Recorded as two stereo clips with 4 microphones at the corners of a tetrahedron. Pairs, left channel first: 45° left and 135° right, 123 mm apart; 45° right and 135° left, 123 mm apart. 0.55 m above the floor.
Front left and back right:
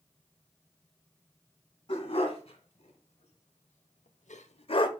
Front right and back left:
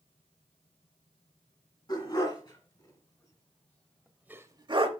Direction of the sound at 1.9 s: 5° left.